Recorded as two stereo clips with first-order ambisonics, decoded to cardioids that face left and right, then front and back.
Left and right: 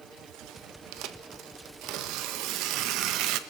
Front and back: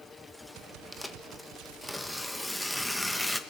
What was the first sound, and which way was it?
Tearing paper, 90° right.